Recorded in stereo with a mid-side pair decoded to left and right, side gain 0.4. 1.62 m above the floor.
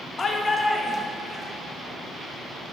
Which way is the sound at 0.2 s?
40° left.